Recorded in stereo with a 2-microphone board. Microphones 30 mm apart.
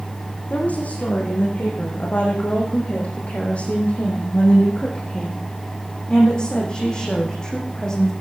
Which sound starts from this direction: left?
A woman speaking, at 0.5 s.